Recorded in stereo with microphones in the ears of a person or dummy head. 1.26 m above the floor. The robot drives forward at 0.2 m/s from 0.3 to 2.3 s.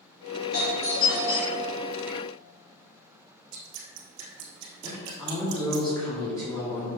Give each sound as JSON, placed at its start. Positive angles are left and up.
{"t": 0.5, "sound": "a doorbell", "side_deg": 50, "distance_m": 2.5}
{"t": 3.5, "sound": "dripping", "side_deg": -70, "distance_m": 2.0}
{"t": 4.8, "sound": "a woman speaking", "side_deg": 15, "distance_m": 2.5}